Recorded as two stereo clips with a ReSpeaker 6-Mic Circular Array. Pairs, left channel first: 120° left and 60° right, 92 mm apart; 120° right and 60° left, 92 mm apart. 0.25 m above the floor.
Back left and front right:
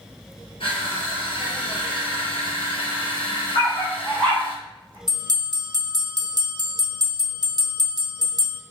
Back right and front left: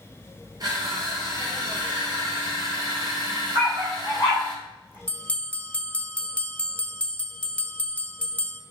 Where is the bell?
50° right, 0.6 m.